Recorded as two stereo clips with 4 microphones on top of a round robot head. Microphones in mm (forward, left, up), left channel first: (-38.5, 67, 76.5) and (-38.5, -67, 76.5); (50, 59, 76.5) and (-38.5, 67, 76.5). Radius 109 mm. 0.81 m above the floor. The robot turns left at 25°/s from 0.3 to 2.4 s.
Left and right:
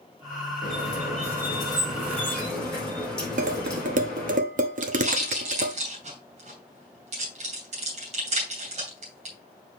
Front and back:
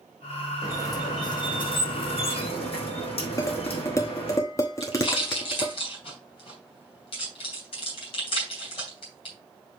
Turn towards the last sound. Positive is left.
turn(degrees=-40)